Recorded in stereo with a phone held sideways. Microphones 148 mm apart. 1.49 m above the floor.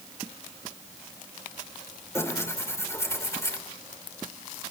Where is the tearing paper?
20° left (ahead or behind), 3 m.